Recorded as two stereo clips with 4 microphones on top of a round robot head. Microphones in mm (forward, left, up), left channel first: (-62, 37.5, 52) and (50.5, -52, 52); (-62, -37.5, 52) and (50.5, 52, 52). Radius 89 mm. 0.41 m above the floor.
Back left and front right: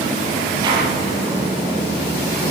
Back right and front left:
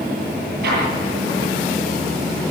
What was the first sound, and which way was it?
An explosion, 25° left.